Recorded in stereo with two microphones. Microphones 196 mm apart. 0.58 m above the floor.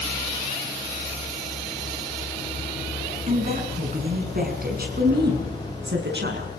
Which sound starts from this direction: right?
A woman speaking, at 3.3 s.